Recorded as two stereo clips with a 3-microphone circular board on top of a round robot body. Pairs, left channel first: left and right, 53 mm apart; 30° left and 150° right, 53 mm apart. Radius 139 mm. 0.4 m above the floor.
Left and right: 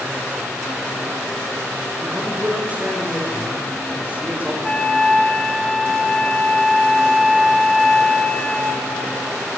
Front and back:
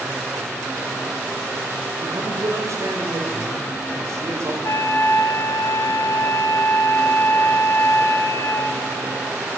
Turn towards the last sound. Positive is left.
turn(degrees=15)